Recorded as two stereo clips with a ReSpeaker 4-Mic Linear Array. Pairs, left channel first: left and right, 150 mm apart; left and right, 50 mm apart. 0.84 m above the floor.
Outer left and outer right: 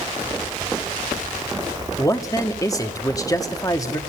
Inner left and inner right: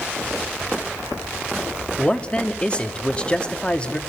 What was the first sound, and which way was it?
A man speaking, 25° left (ahead or behind).